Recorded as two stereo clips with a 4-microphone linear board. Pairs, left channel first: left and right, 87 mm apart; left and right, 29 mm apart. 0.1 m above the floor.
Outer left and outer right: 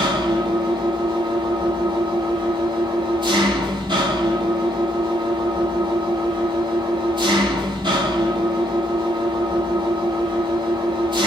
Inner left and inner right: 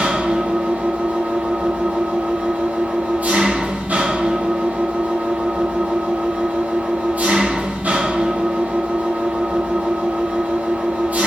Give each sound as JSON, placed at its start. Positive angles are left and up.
{"t": 0.0, "sound": "an engine running", "side_deg": -65, "distance_m": 0.7}